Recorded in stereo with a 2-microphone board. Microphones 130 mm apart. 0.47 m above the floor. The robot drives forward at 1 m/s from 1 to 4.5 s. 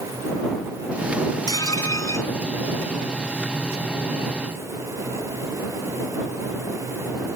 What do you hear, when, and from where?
1.5 s dishes clattering: 30° left (ahead or behind); by 2.3 s 25° left (ahead or behind)